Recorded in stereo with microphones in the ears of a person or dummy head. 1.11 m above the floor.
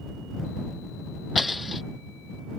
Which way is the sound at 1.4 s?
Centre (ahead or behind).